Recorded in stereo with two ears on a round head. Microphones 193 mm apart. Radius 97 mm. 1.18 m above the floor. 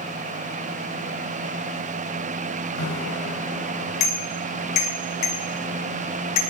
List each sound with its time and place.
2.8 s a bicycle bell: 80° left, 4.5 m; by 6.4 s 85° left, 10 m